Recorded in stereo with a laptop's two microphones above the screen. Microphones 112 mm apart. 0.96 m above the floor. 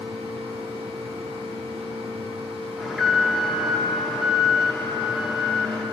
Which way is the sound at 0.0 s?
70° right (ahead or behind).